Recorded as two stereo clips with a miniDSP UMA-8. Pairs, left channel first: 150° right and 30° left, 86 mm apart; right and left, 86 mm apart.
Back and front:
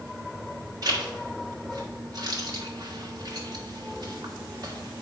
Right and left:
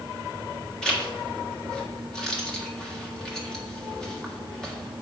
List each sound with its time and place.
0.8 s a zipper: 10° right, 1.6 m